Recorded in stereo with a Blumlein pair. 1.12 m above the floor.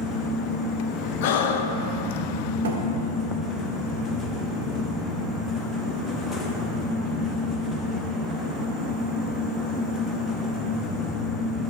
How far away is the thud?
About 1.6 m.